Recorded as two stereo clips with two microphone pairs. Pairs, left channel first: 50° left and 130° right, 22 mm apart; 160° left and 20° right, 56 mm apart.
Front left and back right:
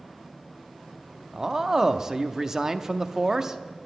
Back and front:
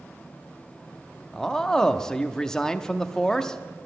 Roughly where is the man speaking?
Behind right.